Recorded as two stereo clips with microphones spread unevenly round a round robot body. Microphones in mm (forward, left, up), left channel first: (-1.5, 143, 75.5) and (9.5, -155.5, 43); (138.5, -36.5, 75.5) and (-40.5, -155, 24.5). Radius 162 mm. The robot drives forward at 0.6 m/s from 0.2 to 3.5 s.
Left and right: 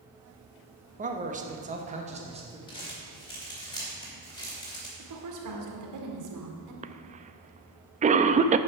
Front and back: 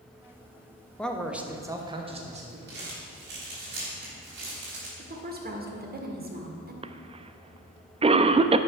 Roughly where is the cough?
Behind right.